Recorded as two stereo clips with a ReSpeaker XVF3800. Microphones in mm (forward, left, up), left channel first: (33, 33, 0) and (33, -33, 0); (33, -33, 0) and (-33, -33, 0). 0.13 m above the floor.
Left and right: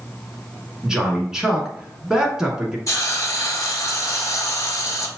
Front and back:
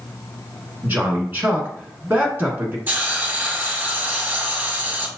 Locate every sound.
0.8 s a man speaking: 165° right, 1.2 m
2.9 s a hiss: 120° left, 0.9 m